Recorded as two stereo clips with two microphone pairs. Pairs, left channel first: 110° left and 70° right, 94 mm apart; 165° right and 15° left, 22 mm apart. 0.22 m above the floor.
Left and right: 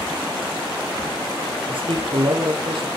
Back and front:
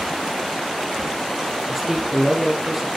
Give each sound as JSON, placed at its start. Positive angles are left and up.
{"t": 1.7, "sound": "a man speaking", "azimuth_deg": -55, "distance_m": 5.0}